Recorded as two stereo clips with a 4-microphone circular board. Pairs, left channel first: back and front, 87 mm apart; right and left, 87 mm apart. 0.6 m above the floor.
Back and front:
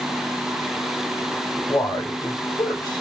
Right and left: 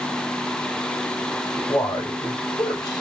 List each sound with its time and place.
1.5 s a man speaking: 135° right, 3 m